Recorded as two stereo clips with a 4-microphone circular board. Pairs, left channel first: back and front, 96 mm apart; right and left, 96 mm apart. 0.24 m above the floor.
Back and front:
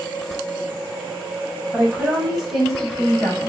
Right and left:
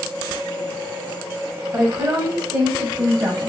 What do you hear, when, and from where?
1.7 s a woman speaking: 65° left, 1.7 m; by 3.5 s 115° left, 1.8 m